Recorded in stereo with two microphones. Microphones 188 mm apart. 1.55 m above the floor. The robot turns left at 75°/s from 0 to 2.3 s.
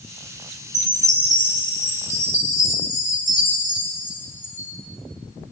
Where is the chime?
160° right, 3 m; by 4.7 s 85° left, 3 m.